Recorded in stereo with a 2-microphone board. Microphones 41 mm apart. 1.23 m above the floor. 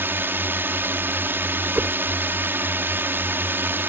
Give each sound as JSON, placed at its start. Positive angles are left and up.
{"t": 0.0, "sound": "a drone", "side_deg": -65}
{"t": 1.8, "sound": "a whoosh", "side_deg": -35}